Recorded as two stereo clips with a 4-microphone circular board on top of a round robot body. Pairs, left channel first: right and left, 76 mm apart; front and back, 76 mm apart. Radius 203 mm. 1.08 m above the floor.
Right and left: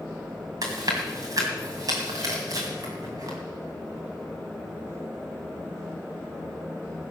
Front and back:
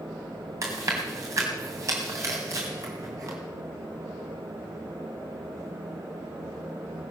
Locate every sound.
0.6 s chewing: 130° left, 2 m